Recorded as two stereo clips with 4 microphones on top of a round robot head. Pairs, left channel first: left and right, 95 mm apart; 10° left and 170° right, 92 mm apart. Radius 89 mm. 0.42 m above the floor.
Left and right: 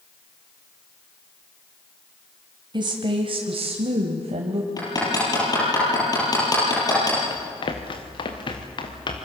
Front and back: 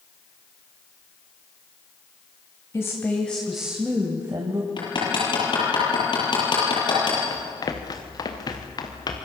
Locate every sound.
2.7 s a woman speaking: 55° right, 2.5 m; by 4.7 s 125° right, 2.5 m
4.8 s hammering: 40° left, 8.5 m
7.3 s running footsteps: 60° left, 3 m; by 9.2 s 50° left, 4 m